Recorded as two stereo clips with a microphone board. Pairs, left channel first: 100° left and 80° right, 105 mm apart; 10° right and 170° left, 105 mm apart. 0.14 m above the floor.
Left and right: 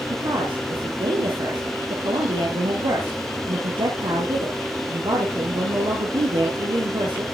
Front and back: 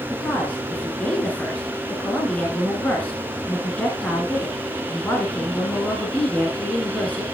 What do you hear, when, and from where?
0.1 s a woman speaking: 85° right, 2.5 m